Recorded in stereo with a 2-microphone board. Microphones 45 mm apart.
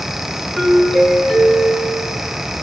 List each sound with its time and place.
0.6 s a doorbell: centre (ahead or behind), 6.5 m